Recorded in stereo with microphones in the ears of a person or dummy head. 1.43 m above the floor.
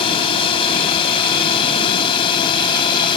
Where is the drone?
30° left (ahead or behind); by 3.2 s 25° left (ahead or behind).